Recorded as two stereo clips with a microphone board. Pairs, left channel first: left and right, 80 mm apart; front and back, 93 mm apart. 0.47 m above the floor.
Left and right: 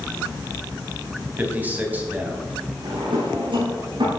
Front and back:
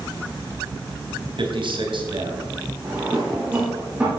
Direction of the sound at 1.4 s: 160° right.